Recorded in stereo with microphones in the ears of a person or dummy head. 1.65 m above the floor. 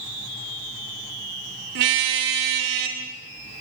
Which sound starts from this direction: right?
A car horn, at 1.8 s.